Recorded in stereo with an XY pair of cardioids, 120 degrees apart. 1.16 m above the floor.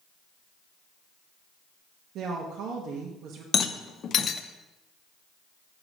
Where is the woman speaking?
65° right, 1.1 m.